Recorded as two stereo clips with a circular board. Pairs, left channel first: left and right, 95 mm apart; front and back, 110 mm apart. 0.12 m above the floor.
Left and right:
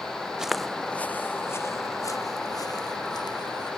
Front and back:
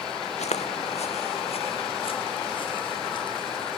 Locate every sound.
0.4 s footsteps: 5° right; by 3.7 s 50° left